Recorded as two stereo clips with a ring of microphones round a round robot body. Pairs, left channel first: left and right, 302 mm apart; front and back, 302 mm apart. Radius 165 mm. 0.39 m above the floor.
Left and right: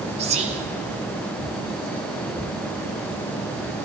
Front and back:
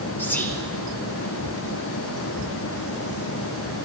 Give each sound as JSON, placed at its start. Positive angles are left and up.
{"t": 0.2, "sound": "whispering", "azimuth_deg": -70, "distance_m": 0.8}